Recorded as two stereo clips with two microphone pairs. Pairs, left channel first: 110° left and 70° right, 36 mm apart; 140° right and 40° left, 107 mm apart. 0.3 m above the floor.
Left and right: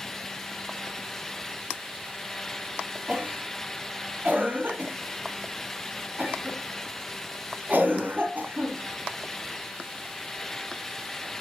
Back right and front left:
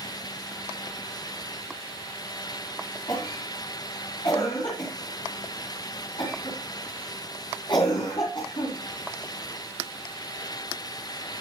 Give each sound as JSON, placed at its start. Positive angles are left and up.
{"t": 3.1, "sound": "a cough", "azimuth_deg": -105, "distance_m": 3.0}